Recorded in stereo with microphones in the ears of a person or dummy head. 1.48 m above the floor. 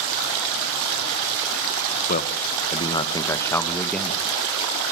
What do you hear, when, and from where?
2.1 s a man speaking: 35° left (ahead or behind), 1.7 m; by 4.2 s 5° right (ahead or behind), 2 m